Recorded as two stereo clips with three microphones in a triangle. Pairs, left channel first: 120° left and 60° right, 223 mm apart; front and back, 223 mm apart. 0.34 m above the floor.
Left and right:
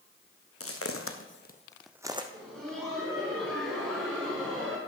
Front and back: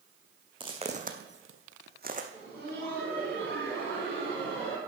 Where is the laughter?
150° right, 3.5 m.